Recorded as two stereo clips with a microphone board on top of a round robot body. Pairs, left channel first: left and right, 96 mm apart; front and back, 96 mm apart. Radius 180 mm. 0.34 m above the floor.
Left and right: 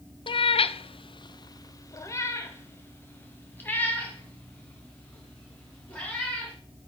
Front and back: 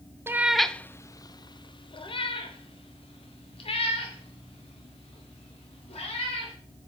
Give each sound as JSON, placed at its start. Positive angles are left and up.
{"t": 0.3, "sound": "a cat meowing", "azimuth_deg": 115, "distance_m": 0.5}